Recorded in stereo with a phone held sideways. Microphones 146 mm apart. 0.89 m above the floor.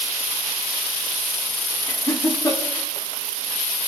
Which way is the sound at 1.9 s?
25° left (ahead or behind).